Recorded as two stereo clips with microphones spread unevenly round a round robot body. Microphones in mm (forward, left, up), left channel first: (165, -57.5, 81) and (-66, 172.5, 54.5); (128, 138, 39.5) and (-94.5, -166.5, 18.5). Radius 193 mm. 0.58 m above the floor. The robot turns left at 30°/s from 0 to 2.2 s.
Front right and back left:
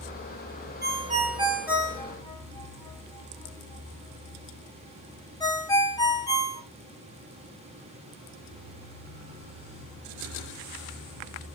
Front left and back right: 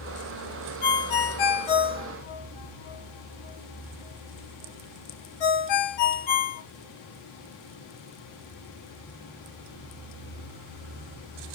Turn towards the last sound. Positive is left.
turn(degrees=35)